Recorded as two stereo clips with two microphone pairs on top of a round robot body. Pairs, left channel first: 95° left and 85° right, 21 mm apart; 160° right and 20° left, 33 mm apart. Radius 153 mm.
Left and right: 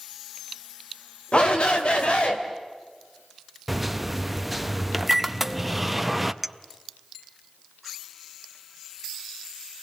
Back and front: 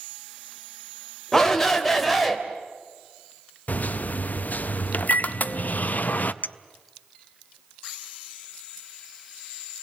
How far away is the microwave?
About 1.0 m.